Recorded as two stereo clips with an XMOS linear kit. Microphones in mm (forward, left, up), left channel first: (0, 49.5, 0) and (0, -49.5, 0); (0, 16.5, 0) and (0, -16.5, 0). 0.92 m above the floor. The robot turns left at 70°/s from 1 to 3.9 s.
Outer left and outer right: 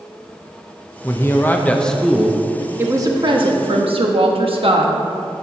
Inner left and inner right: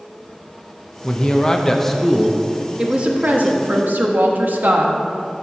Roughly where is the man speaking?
Left.